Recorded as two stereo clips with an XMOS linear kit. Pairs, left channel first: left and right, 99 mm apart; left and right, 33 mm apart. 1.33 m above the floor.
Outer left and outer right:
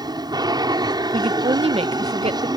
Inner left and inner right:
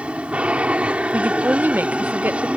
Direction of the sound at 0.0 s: 45° right (ahead or behind).